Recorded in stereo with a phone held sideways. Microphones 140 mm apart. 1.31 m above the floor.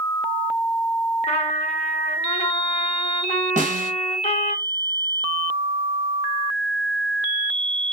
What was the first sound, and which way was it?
A trumpet, 45° left (ahead or behind).